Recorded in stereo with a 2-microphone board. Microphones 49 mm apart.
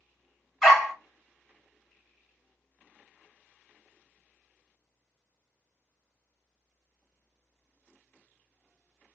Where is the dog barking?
5° left (ahead or behind), 1.7 m.